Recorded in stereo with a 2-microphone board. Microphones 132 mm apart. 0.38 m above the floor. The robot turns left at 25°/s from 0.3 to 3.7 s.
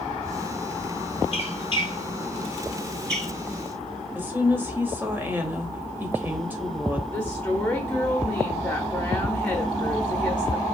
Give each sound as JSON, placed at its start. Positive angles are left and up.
{"t": 1.3, "sound": "a squeak", "side_deg": 50, "distance_m": 0.8}
{"t": 4.2, "sound": "a woman speaking", "side_deg": -15, "distance_m": 1.3}
{"t": 7.1, "sound": "a woman speaking", "side_deg": 10, "distance_m": 1.0}